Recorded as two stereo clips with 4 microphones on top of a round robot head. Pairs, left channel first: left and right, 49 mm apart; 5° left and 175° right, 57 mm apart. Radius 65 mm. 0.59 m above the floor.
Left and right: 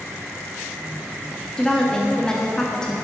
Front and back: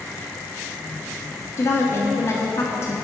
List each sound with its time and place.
1.6 s a woman speaking: 15° left, 0.8 m